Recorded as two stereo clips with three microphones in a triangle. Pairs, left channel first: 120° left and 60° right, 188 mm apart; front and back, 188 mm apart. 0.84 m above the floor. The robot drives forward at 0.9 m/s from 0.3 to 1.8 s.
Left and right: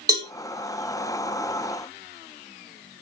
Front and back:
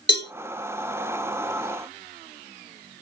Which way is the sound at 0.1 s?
10° left.